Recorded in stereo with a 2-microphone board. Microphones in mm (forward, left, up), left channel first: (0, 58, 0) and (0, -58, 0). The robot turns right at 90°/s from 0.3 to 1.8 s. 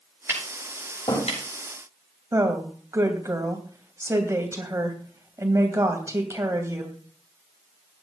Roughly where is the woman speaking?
Right.